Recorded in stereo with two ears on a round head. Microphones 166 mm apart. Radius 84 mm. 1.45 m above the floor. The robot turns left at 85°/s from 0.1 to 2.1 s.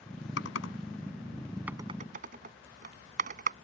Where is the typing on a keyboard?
75° left (ahead or behind); by 3.5 s 45° right (ahead or behind).